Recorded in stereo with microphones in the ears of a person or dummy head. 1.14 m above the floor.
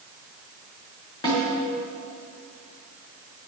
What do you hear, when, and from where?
1.2 s a snare drum: 20° left (ahead or behind), 3 m